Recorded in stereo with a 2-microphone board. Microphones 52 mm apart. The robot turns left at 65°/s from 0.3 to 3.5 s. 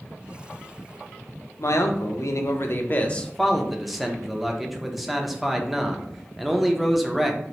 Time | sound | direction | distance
1.6 | a man speaking | 120° left | 0.6 m